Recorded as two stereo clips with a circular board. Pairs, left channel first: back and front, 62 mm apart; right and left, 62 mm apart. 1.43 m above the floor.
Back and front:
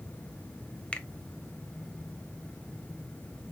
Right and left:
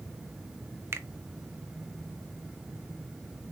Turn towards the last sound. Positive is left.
turn(degrees=115)